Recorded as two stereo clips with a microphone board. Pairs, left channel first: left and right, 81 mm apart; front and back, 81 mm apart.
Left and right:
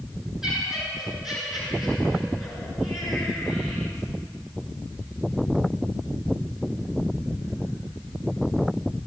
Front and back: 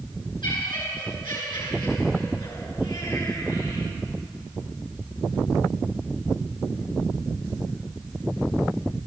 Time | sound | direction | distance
0.4 | laughter | 10° right | 9 m